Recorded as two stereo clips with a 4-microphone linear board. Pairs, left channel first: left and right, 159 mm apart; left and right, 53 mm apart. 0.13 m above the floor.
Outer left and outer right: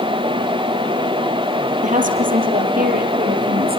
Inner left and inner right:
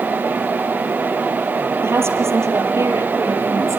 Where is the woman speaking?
55° right (ahead or behind), 4 m; by 3.8 s 75° right (ahead or behind), 5.5 m.